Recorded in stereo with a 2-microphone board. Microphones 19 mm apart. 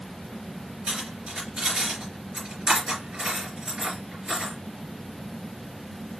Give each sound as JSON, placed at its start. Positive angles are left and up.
{"t": 0.9, "sound": "cutlery clinking", "side_deg": -75, "distance_m": 3.0}